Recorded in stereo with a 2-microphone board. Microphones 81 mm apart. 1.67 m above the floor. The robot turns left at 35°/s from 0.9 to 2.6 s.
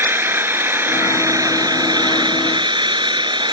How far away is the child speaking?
I don't hear a child speaking.